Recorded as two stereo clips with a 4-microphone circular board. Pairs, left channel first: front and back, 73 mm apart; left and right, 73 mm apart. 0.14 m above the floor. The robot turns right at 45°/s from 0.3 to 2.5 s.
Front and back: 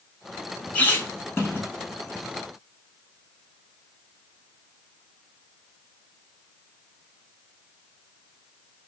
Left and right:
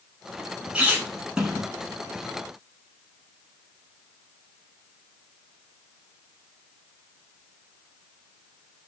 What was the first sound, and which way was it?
A squeak, 50° right.